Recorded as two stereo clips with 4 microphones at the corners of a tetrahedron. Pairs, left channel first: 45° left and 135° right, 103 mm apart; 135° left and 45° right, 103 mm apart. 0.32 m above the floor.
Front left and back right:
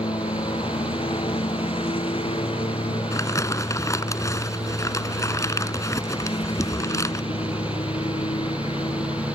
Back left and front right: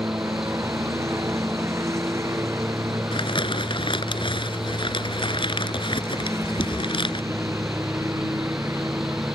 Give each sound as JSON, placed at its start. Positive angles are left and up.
{"t": 0.0, "sound": "a lawn mower", "azimuth_deg": 15}
{"t": 3.1, "sound": "crumpling", "azimuth_deg": 105}